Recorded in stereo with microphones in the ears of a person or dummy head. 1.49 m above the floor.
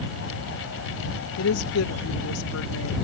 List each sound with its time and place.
1.4 s a woman speaking: 85° left